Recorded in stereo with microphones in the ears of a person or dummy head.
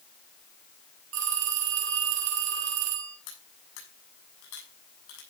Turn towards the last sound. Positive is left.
turn(degrees=75)  # may be behind; listen again after turning